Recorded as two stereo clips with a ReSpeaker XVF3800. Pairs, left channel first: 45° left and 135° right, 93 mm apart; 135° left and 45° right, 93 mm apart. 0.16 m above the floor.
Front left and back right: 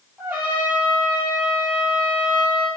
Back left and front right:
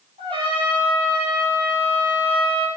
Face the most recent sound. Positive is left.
turn(degrees=-65)